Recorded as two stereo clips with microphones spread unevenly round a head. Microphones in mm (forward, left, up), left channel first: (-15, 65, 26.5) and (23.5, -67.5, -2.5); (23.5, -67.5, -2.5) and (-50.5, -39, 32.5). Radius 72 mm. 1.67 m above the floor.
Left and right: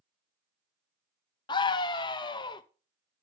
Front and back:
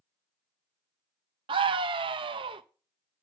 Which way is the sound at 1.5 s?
165° left.